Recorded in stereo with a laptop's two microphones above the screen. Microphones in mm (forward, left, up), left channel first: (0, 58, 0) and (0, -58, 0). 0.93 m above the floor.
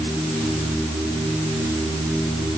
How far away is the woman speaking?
No woman speaking in this recording.